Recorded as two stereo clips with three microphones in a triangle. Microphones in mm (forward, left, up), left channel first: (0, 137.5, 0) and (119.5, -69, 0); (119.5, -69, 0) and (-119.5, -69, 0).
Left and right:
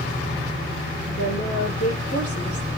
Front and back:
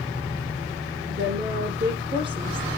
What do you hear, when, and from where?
1.1 s a woman speaking: 140° left, 5.5 m